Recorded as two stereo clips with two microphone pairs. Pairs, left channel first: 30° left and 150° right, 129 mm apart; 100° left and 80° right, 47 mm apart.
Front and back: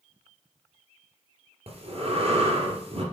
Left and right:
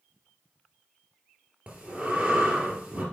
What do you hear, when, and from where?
1.7 s breathing: 150° right, 2.5 m